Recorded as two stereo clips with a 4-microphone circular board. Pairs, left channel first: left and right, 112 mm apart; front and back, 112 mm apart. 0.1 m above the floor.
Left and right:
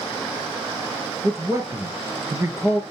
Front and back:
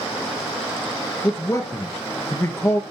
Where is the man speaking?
45° right, 1.5 m.